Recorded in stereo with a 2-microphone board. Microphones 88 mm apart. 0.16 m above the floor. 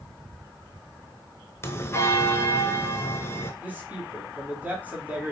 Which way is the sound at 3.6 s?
15° right (ahead or behind).